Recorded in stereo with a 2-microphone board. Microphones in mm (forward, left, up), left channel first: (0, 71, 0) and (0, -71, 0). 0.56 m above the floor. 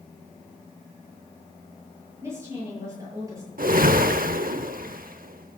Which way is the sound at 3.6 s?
80° right.